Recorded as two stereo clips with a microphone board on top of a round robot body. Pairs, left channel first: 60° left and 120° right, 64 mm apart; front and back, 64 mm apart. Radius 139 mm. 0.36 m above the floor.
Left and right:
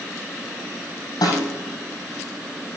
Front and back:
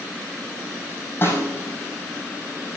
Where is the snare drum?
50° left, 5 m.